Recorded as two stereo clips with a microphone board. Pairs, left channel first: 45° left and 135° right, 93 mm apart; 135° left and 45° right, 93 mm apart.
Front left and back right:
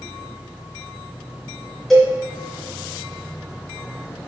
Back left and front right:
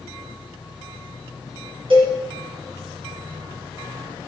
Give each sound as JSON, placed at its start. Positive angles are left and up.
{"t": 1.9, "sound": "a cowbell", "azimuth_deg": -45, "distance_m": 3.5}